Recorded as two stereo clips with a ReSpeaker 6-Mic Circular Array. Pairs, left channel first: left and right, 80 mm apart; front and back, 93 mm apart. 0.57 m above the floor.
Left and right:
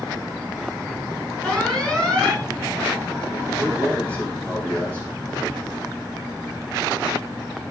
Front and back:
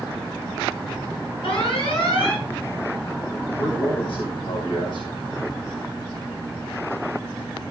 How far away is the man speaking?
About 4 m.